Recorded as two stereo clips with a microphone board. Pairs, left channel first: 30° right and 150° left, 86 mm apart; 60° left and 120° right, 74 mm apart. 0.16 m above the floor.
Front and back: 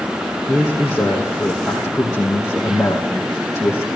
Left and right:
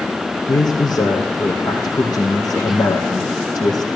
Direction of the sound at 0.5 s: 60° left.